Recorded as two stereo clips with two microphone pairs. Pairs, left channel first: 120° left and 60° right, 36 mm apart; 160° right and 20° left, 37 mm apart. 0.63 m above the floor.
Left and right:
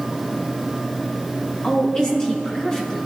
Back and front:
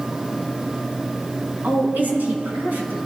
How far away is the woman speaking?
About 4.5 m.